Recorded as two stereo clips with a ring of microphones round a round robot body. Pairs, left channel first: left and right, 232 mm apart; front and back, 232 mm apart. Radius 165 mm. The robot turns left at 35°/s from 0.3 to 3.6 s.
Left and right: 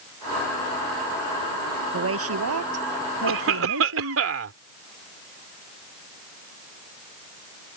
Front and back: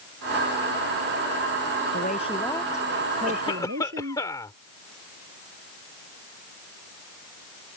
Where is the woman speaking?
65° right; by 4.2 s 120° right.